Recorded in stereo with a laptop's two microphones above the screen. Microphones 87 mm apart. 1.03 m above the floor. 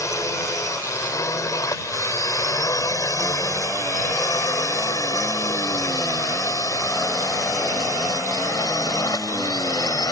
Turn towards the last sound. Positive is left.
turn(degrees=45)  # may be behind; listen again after turning